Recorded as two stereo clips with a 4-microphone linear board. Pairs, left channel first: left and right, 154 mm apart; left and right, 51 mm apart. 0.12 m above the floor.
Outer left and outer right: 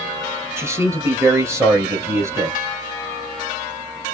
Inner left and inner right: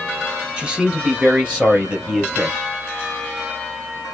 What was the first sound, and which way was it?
A man speaking, 15° right (ahead or behind).